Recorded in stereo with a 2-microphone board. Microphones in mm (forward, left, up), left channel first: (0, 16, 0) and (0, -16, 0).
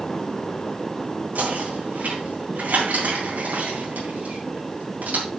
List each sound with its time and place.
1.4 s knocking: 65° right (ahead or behind), 4 m